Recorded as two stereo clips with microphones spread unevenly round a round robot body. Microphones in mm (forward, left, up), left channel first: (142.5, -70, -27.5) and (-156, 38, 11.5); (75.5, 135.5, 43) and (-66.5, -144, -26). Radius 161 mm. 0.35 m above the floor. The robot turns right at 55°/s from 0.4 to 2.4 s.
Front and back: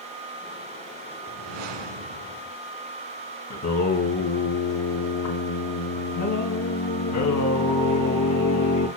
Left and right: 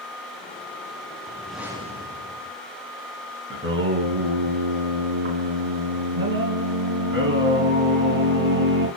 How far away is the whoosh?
About 1.2 m.